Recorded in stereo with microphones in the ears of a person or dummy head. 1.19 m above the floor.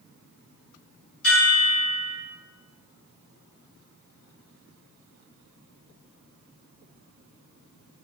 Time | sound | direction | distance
1.2 | a chime | 65° left (ahead or behind) | 1.7 m